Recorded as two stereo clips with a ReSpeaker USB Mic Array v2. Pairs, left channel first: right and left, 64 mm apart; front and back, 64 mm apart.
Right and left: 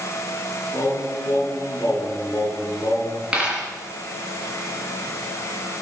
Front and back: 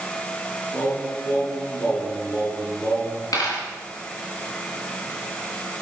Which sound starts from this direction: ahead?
A dropped coin, at 3.3 s.